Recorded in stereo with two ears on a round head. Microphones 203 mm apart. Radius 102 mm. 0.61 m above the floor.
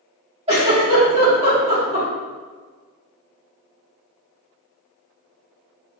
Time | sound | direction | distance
0.5 | a giggle | 30° right (ahead or behind) | 1.3 m